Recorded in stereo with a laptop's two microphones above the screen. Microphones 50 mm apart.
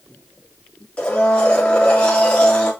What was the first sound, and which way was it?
A blender, 20° left (ahead or behind).